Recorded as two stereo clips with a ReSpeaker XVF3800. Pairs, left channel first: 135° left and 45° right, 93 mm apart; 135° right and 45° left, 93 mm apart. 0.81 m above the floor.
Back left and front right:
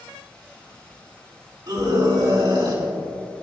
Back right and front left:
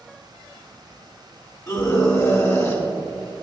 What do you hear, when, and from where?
1.7 s a scream: 85° right, 2.5 m